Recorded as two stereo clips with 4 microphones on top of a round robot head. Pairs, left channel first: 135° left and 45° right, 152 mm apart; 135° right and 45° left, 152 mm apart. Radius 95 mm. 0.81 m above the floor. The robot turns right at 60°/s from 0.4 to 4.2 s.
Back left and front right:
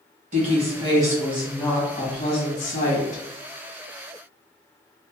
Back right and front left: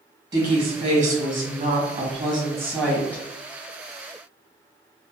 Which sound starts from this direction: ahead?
A woman speaking, at 0.3 s.